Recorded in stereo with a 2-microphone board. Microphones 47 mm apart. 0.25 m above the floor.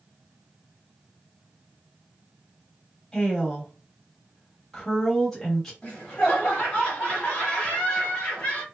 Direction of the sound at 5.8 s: 25° left (ahead or behind).